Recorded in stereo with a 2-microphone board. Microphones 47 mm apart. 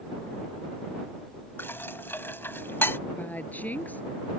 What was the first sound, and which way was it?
Dishes clattering, 55° left (ahead or behind).